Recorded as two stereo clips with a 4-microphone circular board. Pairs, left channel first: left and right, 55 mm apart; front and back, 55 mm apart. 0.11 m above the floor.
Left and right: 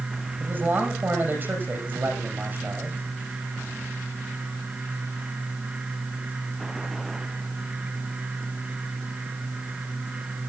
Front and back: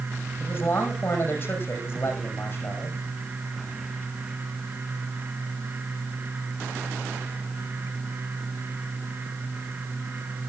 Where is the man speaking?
45° right, 6 m.